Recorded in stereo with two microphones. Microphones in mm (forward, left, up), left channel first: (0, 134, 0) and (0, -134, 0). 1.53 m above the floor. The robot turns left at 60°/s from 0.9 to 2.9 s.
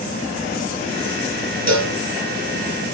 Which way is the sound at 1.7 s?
65° right (ahead or behind).